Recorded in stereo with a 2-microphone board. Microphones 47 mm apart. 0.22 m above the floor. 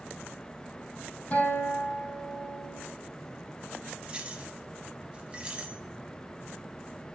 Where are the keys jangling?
25° right (ahead or behind), 1.1 m.